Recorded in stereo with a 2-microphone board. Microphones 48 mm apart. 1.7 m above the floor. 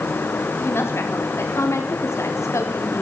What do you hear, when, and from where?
0.6 s a woman speaking: 55° left (ahead or behind), 4.5 m; by 3.0 s 85° left, 4.5 m